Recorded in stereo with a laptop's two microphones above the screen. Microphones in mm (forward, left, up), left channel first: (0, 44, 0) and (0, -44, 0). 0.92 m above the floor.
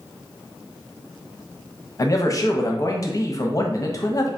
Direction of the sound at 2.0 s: 40° left (ahead or behind).